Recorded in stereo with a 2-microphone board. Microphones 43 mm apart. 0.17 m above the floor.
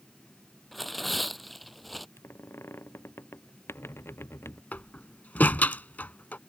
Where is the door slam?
40° left (ahead or behind).